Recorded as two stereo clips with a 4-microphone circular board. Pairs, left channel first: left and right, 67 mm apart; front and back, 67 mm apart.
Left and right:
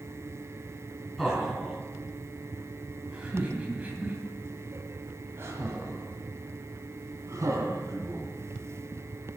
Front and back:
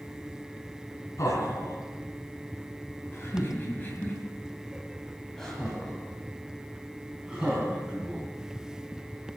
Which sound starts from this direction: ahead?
Laughter, at 1.2 s.